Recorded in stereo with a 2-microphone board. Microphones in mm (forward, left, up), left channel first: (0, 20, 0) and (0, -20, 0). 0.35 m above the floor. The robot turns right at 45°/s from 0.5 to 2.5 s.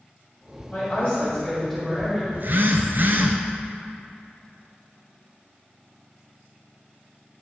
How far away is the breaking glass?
No breaking glass in this recording.